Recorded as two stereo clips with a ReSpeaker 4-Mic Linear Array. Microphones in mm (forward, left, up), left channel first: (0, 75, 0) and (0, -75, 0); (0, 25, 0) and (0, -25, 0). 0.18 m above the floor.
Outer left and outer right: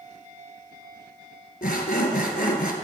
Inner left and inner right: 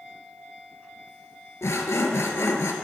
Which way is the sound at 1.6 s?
75° left (ahead or behind).